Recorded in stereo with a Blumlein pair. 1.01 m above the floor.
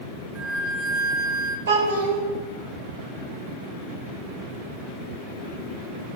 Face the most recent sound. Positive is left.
turn(degrees=-60)